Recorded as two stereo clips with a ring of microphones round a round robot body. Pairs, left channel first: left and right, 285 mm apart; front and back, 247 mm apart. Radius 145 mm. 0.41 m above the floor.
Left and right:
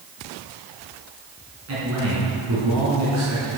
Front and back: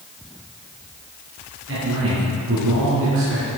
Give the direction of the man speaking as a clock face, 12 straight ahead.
4 o'clock.